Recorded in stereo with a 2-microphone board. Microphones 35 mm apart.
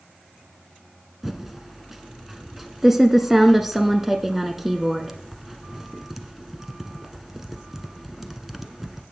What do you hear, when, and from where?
1.2 s typing on a keyboard: 10° right (ahead or behind), 0.9 m